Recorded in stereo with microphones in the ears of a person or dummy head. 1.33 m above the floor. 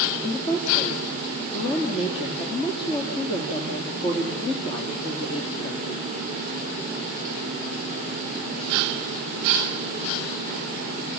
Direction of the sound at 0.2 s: 35° left (ahead or behind).